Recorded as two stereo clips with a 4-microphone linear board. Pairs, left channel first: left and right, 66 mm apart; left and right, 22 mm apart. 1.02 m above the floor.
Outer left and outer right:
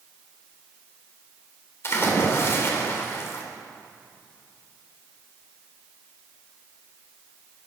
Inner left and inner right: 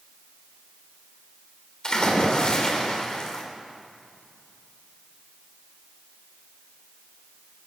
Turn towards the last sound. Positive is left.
turn(degrees=40)  # may be behind; listen again after turning